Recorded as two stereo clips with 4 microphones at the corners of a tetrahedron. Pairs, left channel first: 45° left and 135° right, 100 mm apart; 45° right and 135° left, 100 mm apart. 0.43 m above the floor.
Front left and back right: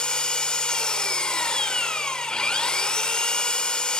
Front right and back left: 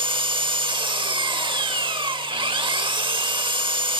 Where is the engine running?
125° left, 0.8 m.